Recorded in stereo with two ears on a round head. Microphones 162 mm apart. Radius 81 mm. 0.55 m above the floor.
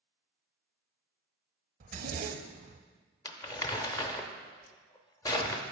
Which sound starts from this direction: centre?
Crumpling, at 3.2 s.